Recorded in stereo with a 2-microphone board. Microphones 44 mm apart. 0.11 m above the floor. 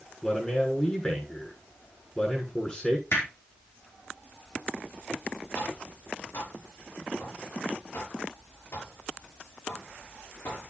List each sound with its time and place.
0.2 s a man speaking: 20° left (ahead or behind), 7 m
3.1 s hammering: 60° left (ahead or behind), 4.5 m
5.5 s tapping: 70° left (ahead or behind), 6 m